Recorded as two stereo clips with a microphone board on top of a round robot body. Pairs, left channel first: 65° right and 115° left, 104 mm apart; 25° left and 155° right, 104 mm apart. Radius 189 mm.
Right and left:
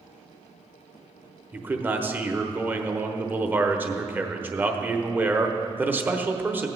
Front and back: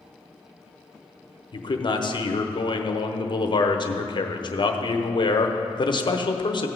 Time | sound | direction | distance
1.5 | a man speaking | 45° left | 1.2 m